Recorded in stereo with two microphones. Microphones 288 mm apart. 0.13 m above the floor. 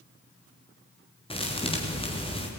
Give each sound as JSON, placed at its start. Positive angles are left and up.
{"t": 1.3, "sound": "a thud", "side_deg": 20, "distance_m": 4.5}